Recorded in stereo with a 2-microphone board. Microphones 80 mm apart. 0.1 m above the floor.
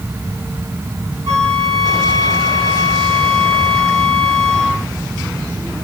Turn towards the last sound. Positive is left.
turn(degrees=40)  # may be behind; listen again after turning